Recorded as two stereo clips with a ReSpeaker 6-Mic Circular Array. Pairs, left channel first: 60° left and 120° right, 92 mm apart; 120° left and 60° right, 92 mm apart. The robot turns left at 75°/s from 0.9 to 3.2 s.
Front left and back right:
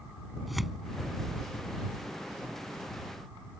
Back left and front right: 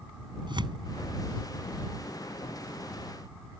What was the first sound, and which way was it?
Tearing paper, 30° right.